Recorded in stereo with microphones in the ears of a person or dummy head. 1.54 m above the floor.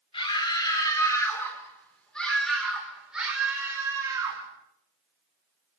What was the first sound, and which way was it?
A scream, 30° left (ahead or behind).